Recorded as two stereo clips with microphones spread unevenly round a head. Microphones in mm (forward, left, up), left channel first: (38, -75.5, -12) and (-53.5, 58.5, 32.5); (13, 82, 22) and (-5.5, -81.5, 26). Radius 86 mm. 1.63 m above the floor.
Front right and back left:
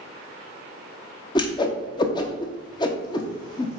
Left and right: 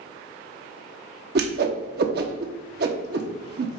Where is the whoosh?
125° right, 0.9 m.